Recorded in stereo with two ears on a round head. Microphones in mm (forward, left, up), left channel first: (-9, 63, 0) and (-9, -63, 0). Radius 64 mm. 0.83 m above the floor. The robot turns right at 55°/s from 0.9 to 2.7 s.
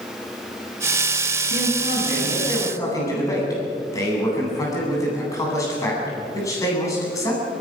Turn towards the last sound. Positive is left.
turn(degrees=155)